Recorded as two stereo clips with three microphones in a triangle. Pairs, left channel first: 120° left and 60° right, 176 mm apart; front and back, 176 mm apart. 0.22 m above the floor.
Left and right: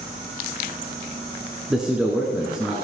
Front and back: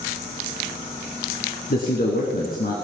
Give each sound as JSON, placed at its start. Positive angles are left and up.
{"t": 1.7, "sound": "a man speaking", "azimuth_deg": 25, "distance_m": 2.5}